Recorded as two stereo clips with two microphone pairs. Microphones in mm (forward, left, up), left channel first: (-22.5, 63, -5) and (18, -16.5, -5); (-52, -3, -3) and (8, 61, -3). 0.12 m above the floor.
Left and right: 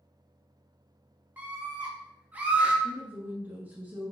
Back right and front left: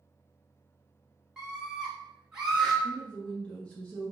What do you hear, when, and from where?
1.4 s a scream: 25° right, 1.1 m
2.8 s a woman speaking: 80° right, 1.3 m